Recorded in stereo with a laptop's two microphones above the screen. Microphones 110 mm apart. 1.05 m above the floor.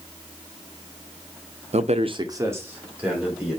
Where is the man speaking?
75° right (ahead or behind), 0.6 m; by 3.6 s 5° right (ahead or behind), 2.5 m.